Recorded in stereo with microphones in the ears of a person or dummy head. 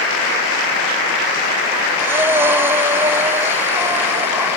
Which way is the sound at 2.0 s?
15° right (ahead or behind).